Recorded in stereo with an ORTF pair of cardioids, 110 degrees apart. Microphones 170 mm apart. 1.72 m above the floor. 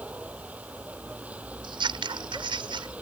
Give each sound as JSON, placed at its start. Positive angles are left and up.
{"t": 0.0, "sound": "a vehicle", "azimuth_deg": -10}
{"t": 1.6, "sound": "scissors", "azimuth_deg": -30}